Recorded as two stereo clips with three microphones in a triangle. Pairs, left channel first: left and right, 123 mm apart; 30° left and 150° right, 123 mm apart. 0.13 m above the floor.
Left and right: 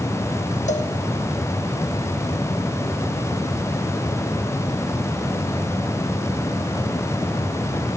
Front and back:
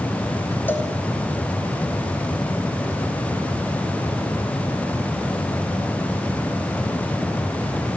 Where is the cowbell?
105° left, 2.5 m.